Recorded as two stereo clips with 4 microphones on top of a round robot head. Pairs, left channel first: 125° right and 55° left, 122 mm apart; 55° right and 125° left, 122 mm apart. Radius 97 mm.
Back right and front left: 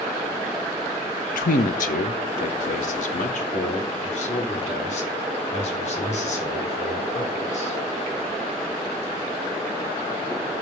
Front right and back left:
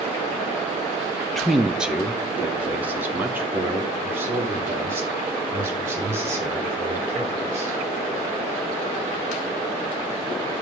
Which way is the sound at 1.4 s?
140° right.